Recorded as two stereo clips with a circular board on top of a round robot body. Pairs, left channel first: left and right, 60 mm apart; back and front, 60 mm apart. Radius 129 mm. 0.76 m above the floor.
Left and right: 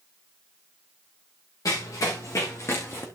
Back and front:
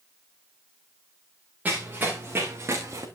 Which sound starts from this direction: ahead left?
Running footsteps, at 1.6 s.